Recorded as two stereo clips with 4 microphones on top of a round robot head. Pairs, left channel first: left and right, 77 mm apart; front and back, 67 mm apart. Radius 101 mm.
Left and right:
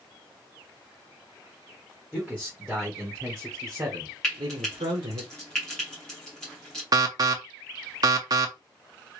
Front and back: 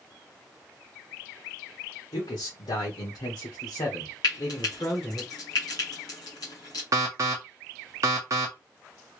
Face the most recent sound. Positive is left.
turn(degrees=-130)